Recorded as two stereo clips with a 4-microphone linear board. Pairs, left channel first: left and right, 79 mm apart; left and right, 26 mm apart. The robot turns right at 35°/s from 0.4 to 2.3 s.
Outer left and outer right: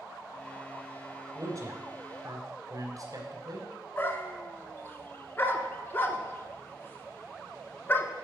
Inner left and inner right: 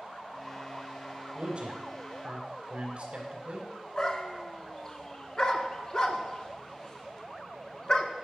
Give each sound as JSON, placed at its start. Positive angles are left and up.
{"t": 1.4, "sound": "a man speaking", "side_deg": -45, "distance_m": 2.0}
{"t": 4.0, "sound": "a dog barking", "side_deg": 25, "distance_m": 0.7}